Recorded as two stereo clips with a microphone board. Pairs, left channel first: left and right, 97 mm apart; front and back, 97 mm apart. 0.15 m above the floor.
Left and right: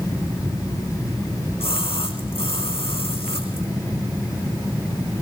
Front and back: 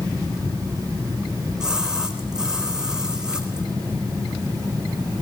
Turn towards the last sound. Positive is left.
turn(degrees=95)